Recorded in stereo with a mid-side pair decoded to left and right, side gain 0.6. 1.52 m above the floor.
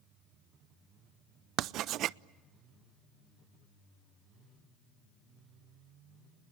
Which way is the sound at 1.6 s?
60° right.